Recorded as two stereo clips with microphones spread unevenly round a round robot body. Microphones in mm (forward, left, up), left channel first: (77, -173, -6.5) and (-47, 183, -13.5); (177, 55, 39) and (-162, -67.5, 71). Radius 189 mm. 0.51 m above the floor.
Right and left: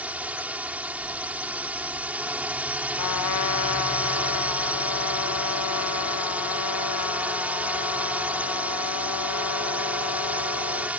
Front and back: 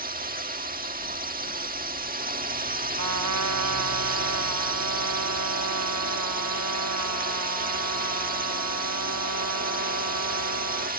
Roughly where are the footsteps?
No footsteps in this recording.